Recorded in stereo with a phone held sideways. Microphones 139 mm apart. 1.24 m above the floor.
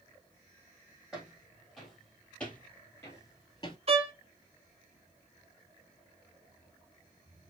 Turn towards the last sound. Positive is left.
turn(degrees=-45)  # may be behind; listen again after turning